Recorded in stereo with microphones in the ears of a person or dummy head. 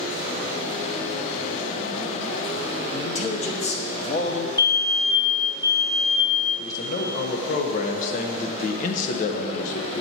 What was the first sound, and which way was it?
A man speaking, 30° left (ahead or behind).